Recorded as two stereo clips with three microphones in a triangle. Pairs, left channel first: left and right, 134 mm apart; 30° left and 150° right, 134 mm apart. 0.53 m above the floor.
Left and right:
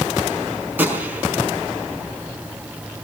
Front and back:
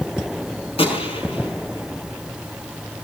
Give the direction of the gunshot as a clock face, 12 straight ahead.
12 o'clock.